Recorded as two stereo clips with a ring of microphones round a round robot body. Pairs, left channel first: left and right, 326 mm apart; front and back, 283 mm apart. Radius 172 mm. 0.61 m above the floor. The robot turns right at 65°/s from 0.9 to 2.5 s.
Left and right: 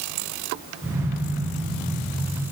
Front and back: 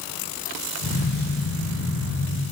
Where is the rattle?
No rattle in this recording.